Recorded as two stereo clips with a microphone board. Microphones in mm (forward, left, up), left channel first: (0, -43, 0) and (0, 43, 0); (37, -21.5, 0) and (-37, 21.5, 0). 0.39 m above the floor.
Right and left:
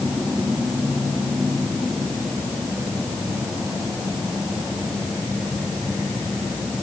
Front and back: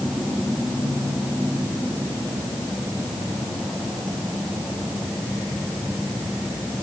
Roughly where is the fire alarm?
No fire alarm in this recording.